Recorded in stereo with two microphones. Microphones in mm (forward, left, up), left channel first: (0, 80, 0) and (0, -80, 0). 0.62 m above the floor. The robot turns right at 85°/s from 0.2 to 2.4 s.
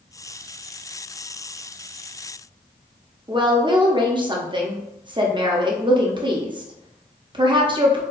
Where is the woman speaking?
30° right (ahead or behind), 0.6 m.